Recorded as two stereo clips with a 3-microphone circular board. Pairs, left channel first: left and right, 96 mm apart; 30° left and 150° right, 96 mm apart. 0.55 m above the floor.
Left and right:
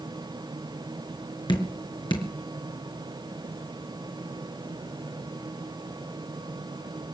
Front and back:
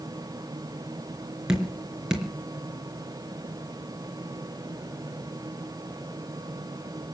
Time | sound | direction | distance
1.5 | dripping | 125° left | 3.5 m